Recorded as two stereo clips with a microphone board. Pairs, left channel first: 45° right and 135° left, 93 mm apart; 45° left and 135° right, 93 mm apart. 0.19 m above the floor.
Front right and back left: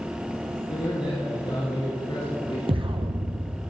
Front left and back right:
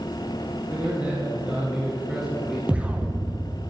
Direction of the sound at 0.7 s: 65° right.